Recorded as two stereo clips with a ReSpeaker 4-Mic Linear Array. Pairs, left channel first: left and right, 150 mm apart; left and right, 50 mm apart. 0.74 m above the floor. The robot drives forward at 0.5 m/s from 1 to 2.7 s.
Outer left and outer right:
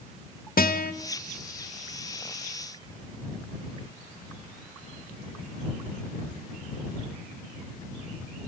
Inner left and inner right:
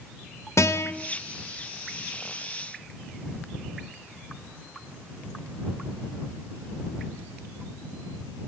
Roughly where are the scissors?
No scissors in this recording.